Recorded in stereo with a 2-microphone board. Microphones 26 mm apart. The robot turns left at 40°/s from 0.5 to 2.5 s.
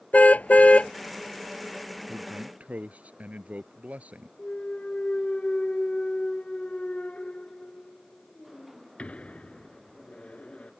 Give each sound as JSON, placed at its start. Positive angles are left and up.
{"t": 0.1, "sound": "a car horn", "side_deg": 65}
{"t": 2.1, "sound": "a man speaking", "side_deg": -50}
{"t": 4.4, "sound": "a clunk", "side_deg": 50}